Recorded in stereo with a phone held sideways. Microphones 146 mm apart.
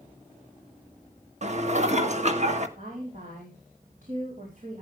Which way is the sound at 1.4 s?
50° right (ahead or behind).